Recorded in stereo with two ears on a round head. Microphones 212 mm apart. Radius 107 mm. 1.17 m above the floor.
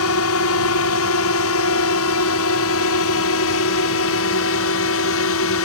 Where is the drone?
65° left (ahead or behind).